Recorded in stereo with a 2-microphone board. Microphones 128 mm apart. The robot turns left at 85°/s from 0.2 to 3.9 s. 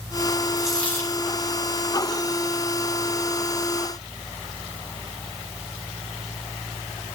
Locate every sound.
0.6 s a dropped coin: 165° right, 3.5 m; by 1.2 s 135° left, 3.5 m